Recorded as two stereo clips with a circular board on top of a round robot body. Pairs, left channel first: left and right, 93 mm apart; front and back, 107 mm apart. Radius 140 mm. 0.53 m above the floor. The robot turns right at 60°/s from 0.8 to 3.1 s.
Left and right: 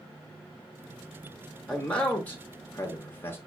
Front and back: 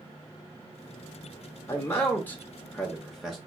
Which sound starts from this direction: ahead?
A man speaking, at 1.7 s.